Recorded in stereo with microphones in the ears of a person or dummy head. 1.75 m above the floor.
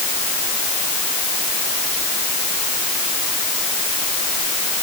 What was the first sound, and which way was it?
Only background noise.